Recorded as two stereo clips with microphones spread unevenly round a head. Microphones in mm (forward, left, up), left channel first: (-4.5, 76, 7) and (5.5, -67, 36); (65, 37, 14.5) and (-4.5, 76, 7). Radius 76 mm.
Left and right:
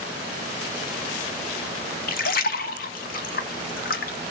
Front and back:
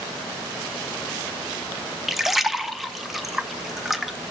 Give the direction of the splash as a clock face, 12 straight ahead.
10 o'clock.